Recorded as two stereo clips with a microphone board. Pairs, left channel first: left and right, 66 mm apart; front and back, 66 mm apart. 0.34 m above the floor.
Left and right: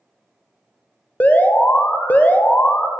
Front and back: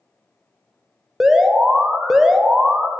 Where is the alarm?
105° left, 0.6 m.